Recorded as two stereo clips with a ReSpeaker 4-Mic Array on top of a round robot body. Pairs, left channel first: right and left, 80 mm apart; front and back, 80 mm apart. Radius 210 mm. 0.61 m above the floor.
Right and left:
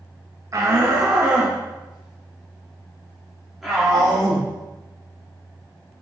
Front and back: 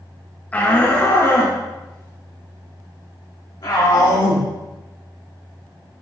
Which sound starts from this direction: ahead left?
A shout, at 0.5 s.